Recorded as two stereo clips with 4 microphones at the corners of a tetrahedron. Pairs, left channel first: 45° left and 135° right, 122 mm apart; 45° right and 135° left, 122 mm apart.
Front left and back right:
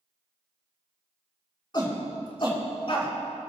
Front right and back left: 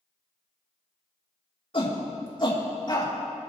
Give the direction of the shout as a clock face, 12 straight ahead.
12 o'clock.